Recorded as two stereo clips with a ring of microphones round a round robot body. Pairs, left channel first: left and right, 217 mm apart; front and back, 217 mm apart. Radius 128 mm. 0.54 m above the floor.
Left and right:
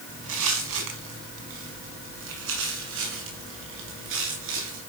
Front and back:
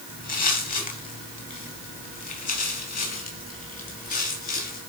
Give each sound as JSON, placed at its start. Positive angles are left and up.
{"t": 0.1, "sound": "footsteps", "azimuth_deg": -50, "distance_m": 5.0}